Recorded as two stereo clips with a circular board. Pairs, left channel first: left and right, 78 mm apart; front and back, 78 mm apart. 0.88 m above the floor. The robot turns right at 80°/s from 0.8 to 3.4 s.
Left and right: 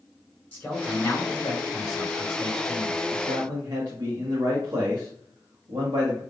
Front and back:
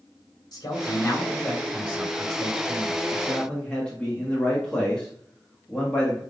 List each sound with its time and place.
0.5 s a man speaking: 30° left, 3 m; by 3.0 s 155° right, 3 m
3.1 s a man speaking: 100° right, 1.2 m; by 6.2 s 75° right, 1.2 m